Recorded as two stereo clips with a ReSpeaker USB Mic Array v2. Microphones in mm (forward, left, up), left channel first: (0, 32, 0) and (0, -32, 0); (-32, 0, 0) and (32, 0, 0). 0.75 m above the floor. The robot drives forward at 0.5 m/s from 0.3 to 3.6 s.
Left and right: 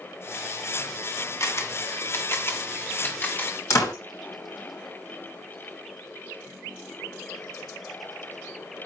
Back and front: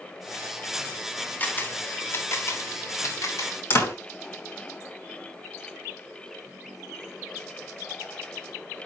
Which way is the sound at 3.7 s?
130° left.